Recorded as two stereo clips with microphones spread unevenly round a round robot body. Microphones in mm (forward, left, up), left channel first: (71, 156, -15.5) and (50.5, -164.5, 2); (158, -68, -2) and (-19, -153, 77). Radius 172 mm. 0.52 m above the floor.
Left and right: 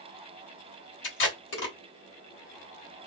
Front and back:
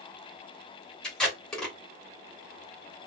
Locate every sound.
1.0 s tape being pulled: 75° left, 1.5 m